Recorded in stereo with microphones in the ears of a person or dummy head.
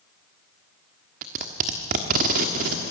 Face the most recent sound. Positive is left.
turn(degrees=-35)  # may be behind; listen again after turning